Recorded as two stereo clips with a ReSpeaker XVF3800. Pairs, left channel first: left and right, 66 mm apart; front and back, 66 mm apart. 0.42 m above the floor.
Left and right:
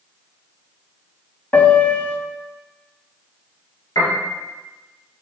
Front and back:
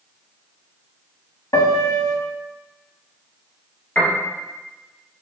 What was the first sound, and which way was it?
A piano, 25° left.